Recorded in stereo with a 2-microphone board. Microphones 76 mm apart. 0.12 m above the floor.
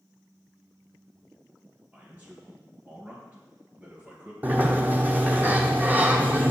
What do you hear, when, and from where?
1.9 s a man speaking: 20° right (ahead or behind), 2.5 m
4.4 s a sliding door: 25° right (ahead or behind), 0.9 m